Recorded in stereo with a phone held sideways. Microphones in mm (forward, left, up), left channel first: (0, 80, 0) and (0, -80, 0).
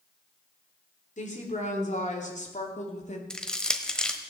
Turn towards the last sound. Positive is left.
turn(degrees=5)  # may be behind; listen again after turning